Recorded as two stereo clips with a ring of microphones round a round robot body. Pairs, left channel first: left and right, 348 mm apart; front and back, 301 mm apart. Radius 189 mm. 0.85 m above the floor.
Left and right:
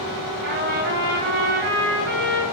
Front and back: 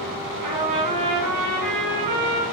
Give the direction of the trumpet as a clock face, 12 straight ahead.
5 o'clock.